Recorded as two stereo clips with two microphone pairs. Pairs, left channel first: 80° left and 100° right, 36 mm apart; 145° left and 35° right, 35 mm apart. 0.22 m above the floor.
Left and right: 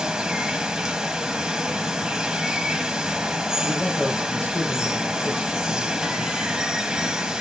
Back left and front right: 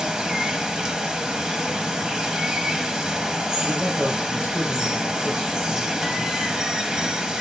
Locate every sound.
0.0 s running water: 80° right, 1.0 m
3.6 s a man speaking: 30° left, 5 m